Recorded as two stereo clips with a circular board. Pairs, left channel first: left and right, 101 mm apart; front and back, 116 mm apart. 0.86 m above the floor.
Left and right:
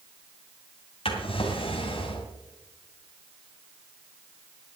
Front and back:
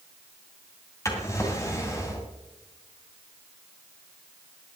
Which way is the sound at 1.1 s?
65° left.